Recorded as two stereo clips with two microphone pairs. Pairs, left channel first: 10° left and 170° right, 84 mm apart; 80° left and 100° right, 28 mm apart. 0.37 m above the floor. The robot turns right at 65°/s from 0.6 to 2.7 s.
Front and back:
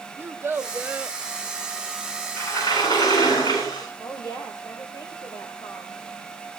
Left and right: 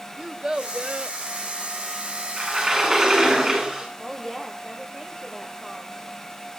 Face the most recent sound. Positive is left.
turn(degrees=0)